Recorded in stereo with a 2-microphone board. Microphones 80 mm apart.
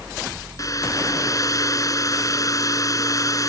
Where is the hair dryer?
45° left (ahead or behind).